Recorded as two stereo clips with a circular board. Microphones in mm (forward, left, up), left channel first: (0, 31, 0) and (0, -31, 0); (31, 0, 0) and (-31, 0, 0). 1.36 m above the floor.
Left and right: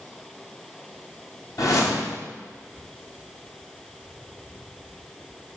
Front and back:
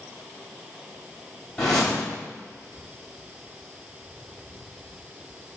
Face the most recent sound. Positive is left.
turn(degrees=80)